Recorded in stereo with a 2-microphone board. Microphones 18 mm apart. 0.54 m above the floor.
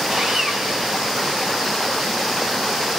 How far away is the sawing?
About 4 m.